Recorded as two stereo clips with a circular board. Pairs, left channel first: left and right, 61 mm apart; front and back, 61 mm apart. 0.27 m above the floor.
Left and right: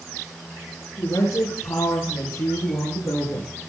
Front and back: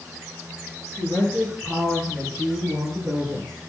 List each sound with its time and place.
1.0 s a woman speaking: 110° left, 7 m; by 3.5 s 125° left, 6.5 m